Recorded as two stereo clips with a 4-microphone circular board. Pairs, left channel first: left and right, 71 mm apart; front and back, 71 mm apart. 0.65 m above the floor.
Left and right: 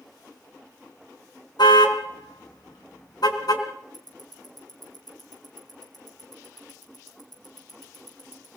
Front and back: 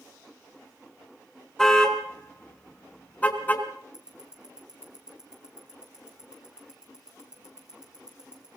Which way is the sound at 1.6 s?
80° left.